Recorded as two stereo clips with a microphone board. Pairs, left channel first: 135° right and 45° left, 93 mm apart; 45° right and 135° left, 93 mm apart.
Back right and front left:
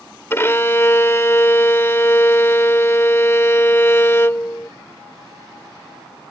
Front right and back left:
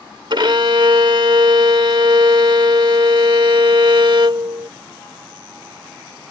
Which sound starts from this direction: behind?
A violin, at 0.3 s.